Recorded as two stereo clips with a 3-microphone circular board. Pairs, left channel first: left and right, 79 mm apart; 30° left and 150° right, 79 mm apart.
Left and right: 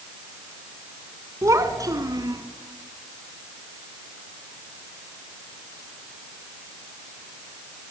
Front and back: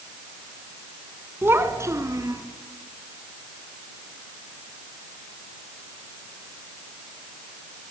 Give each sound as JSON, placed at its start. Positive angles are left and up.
{"t": 1.4, "sound": "a child speaking", "azimuth_deg": -105, "distance_m": 1.5}